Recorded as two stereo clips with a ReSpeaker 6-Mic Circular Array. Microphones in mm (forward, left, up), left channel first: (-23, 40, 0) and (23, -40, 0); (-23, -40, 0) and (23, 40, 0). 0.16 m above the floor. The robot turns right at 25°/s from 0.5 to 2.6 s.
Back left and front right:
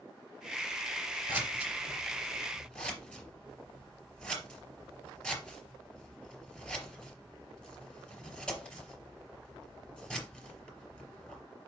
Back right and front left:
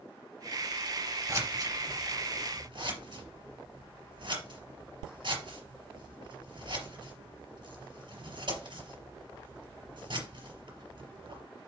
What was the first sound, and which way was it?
Scissors, 10° left.